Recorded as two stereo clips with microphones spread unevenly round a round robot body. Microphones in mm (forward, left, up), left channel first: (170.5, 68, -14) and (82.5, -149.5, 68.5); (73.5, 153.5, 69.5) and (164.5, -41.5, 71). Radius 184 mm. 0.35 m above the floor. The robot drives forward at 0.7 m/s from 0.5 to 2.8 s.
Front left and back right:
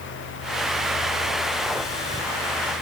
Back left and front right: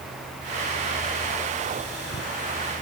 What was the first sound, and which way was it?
Only background noise.